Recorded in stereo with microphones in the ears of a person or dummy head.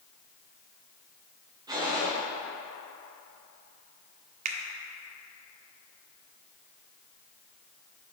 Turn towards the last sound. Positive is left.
turn(degrees=-40)  # may be behind; listen again after turning